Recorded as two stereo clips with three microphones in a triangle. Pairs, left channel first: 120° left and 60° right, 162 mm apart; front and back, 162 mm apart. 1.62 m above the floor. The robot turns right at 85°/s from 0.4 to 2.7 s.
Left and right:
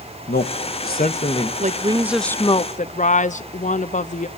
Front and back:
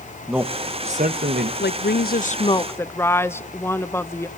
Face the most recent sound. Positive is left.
turn(degrees=75)